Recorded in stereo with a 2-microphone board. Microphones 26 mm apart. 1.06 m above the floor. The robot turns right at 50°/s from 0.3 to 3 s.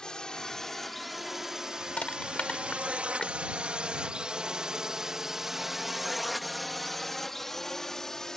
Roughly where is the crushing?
Left.